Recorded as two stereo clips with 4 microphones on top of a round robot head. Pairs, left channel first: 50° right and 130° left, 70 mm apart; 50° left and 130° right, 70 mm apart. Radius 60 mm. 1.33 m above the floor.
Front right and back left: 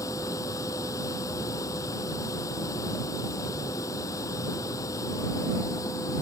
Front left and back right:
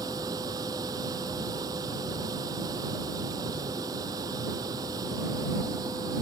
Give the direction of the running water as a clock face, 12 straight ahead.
3 o'clock.